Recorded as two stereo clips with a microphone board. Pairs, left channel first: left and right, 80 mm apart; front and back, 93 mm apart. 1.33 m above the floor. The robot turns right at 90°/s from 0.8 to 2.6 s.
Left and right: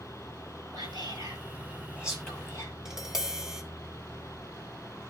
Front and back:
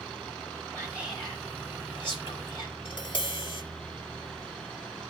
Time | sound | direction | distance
0.7 | whispering | 120° right | 4.5 m
2.9 | tapping | 5° right | 1.4 m